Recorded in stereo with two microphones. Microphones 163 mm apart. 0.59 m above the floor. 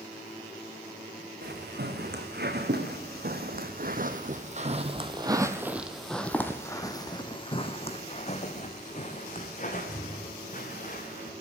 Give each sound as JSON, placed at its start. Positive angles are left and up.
{"t": 1.4, "sound": "footsteps", "side_deg": -80, "distance_m": 2.5}